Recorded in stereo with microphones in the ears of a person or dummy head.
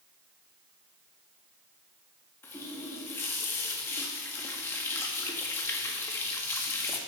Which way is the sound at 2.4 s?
10° left (ahead or behind).